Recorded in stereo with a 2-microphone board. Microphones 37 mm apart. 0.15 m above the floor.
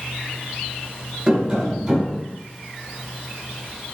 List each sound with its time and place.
1.3 s tapping: 20° right (ahead or behind), 1.4 m